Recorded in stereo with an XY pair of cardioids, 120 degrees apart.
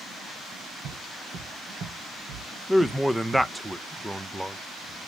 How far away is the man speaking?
About 0.5 m.